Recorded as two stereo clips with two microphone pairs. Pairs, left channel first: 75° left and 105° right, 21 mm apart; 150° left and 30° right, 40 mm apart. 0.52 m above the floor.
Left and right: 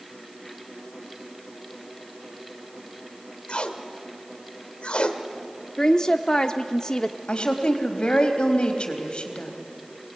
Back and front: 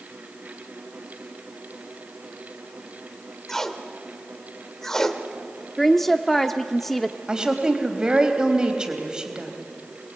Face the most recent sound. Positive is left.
turn(degrees=45)